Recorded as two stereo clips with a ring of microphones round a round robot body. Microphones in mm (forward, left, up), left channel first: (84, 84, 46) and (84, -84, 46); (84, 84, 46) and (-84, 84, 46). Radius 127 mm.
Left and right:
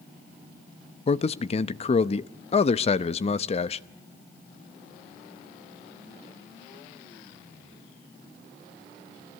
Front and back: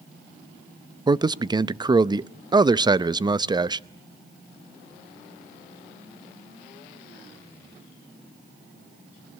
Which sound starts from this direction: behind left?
A man speaking, at 1.1 s.